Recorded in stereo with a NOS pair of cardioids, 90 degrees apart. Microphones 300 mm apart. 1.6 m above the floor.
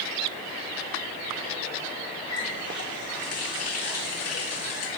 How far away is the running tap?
About 2 m.